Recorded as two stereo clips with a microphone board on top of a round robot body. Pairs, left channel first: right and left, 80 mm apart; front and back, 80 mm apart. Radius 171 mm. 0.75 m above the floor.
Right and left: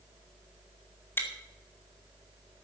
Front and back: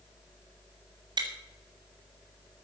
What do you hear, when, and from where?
1.2 s chewing: 155° right, 3 m